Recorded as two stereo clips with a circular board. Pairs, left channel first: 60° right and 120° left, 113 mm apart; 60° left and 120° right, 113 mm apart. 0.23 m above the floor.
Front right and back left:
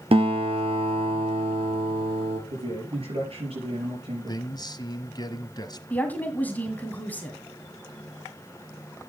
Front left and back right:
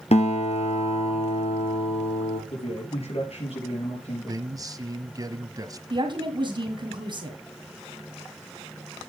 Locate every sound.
0.1 s a guitar: 85° left, 2.5 m
2.5 s a man speaking: 90° left, 5.5 m
4.3 s a man speaking: 85° right, 1.2 m
5.9 s a woman speaking: 130° right, 2.0 m